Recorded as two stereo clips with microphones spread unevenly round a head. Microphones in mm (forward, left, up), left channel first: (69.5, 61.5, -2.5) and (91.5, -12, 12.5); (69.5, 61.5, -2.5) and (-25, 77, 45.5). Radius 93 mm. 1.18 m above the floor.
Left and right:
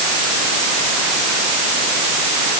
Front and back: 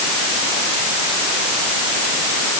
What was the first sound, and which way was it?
Only background noise.